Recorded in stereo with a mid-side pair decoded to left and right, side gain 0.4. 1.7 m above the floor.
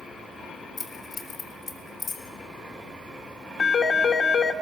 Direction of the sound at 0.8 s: 55° left.